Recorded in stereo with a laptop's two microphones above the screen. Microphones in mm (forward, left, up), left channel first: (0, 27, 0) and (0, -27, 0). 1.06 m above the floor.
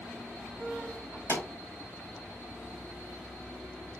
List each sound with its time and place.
1.3 s a pop: 50° left (ahead or behind), 3 m